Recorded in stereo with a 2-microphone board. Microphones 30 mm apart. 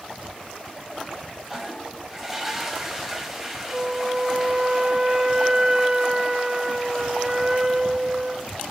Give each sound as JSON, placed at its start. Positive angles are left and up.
{"t": 1.5, "sound": "a toilet flushing", "side_deg": -5, "distance_m": 1.5}
{"t": 3.7, "sound": "a flute", "side_deg": -20, "distance_m": 0.5}